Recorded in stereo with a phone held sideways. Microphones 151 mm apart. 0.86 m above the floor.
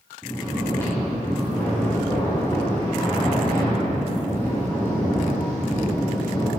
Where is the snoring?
20° left (ahead or behind), 4 m.